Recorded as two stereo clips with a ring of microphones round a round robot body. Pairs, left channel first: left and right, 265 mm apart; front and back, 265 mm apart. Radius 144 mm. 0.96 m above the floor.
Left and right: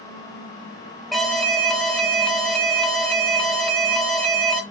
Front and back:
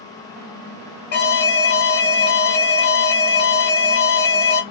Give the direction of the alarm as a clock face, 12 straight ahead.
12 o'clock.